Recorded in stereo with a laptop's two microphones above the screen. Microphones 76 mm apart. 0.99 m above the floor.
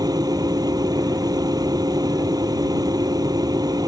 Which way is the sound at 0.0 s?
55° right (ahead or behind).